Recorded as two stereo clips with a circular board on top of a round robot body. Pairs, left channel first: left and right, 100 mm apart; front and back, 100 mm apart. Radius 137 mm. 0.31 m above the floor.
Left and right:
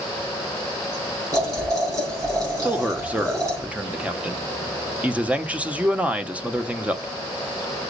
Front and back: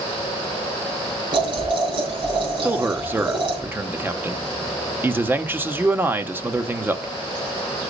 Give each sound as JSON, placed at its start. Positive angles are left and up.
{"t": 1.3, "sound": "boiling", "azimuth_deg": -145, "distance_m": 5.0}
{"t": 2.6, "sound": "a man speaking", "azimuth_deg": -145, "distance_m": 1.1}